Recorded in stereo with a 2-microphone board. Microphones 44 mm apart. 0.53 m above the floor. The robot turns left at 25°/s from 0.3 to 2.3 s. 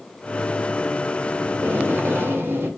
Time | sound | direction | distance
1.5 | tape being pulled | 60° right (ahead or behind) | 1.4 m